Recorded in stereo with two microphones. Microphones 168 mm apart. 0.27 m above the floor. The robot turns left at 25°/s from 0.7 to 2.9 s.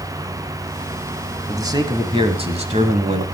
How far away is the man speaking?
About 1.5 m.